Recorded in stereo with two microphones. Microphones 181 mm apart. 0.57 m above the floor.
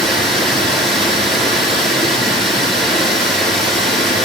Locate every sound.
0.0 s running water: centre (ahead or behind), 6.5 m